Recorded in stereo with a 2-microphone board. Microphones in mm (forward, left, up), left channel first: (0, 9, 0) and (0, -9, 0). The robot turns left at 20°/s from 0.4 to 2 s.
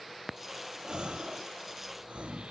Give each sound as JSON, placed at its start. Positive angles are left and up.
{"t": 0.8, "sound": "a gasp", "side_deg": -55, "distance_m": 1.7}